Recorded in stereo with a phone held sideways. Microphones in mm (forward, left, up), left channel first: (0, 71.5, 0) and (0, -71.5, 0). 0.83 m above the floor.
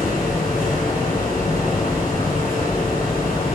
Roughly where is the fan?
Left.